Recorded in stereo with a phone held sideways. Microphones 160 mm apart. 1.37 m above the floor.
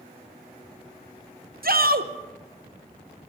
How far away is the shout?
About 0.8 m.